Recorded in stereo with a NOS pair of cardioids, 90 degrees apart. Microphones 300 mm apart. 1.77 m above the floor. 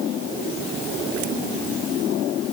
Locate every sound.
Only background noise.